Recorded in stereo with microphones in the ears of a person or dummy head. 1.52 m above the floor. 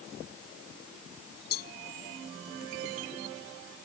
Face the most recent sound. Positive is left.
turn(degrees=60)  # may be behind; listen again after turning